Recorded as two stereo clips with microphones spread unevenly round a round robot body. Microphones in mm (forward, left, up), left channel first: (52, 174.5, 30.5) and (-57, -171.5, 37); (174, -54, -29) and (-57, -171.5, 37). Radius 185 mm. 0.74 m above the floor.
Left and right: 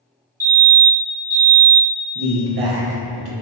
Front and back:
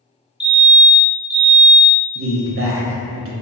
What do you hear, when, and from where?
0.4 s a fire alarm: 40° right, 1.5 m
2.1 s a man speaking: 110° right, 0.7 m